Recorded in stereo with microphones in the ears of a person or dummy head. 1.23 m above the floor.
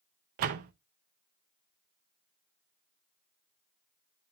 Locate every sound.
0.4 s a door slam: 45° right (ahead or behind), 0.6 m